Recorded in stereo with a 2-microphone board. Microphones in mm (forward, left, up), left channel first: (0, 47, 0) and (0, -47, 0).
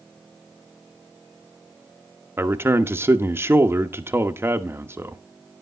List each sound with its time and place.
2.4 s a man speaking: 25° right (ahead or behind), 1.0 m